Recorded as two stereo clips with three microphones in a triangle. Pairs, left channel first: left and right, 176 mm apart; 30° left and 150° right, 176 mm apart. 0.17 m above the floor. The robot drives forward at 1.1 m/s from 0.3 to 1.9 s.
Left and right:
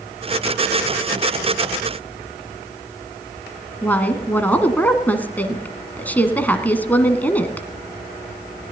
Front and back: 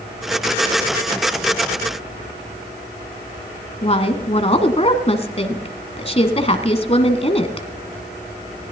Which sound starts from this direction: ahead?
A woman speaking, at 3.8 s.